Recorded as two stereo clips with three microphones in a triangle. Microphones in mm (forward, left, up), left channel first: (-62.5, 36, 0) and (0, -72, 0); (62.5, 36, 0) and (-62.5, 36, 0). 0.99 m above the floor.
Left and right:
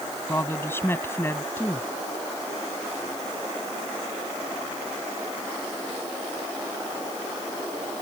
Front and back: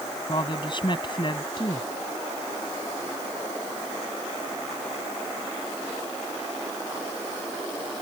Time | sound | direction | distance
0.3 | a woman speaking | 50° left | ?